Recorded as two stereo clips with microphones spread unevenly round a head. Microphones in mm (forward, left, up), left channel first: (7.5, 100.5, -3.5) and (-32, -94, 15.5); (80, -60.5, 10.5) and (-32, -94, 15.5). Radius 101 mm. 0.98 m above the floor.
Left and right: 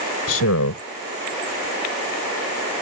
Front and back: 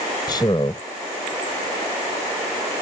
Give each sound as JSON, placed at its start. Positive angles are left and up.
{"t": 0.3, "sound": "a man speaking", "azimuth_deg": 85}